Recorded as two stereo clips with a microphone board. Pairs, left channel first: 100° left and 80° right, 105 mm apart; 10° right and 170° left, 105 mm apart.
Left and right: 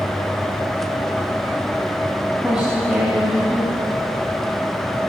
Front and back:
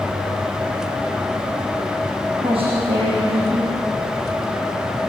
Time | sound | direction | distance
2.4 | a woman speaking | 165° right | 6.5 m